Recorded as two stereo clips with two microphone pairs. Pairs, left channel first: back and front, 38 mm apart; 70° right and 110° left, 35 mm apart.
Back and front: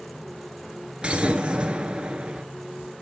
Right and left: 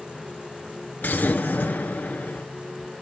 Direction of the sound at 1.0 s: 60° right.